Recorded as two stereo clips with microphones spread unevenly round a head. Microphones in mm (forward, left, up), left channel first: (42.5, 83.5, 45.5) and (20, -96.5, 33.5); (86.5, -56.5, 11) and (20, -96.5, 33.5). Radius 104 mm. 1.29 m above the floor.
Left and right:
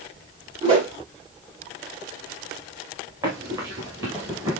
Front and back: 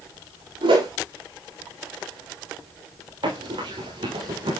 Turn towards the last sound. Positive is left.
turn(degrees=-175)